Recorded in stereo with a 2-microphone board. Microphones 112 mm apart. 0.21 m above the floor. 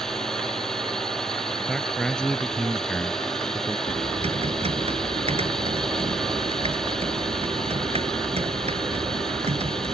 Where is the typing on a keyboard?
65° right (ahead or behind).